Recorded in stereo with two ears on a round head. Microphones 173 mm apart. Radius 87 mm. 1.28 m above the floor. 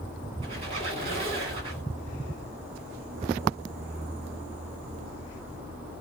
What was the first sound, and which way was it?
A squeak, 30° right (ahead or behind).